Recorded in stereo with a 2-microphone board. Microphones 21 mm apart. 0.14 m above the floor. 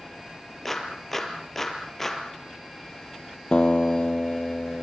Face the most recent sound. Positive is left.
turn(degrees=50)  # may be behind; listen again after turning